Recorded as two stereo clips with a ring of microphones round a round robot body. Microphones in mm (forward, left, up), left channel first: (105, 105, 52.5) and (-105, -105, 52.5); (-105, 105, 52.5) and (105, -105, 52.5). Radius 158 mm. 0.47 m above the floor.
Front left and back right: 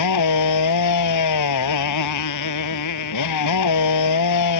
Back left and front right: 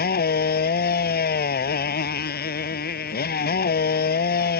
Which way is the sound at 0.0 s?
75° left.